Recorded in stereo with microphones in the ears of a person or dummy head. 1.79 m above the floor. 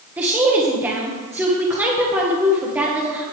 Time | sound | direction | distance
0.2 | a woman speaking | 5° right (ahead or behind) | 1.4 m